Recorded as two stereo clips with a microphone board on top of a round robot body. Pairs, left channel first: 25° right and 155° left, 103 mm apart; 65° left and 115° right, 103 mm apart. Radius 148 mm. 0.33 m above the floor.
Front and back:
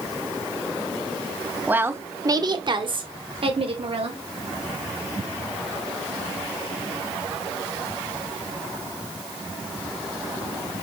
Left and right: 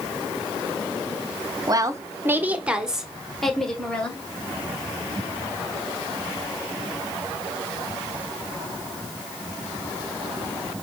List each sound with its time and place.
1.7 s a woman speaking: 140° right, 1.4 m; by 4.2 s 145° left, 2.5 m